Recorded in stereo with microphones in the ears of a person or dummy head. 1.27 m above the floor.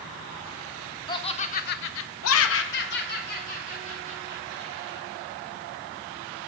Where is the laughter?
25° left (ahead or behind), 0.7 m; by 5.1 s 35° left (ahead or behind), 2 m.